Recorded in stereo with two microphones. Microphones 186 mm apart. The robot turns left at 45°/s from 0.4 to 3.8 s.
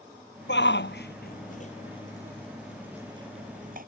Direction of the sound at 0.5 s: 75° left (ahead or behind).